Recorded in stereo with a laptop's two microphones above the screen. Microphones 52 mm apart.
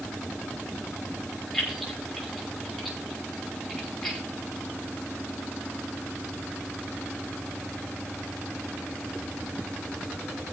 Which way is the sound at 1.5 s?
5° left (ahead or behind).